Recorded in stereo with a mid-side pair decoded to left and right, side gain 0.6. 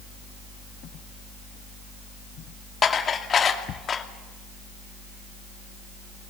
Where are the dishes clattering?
35° left, 2.5 m.